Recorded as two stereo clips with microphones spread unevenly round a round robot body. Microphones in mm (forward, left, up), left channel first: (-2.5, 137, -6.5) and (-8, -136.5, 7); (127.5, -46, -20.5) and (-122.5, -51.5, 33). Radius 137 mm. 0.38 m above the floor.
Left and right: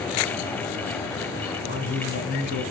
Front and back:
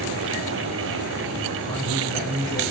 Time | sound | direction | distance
1.7 | a man speaking | 140° left | 2.5 m